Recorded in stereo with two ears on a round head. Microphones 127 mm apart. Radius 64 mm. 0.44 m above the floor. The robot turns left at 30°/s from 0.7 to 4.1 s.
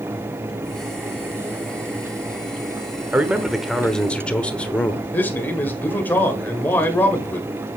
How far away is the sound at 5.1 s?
About 1.5 m.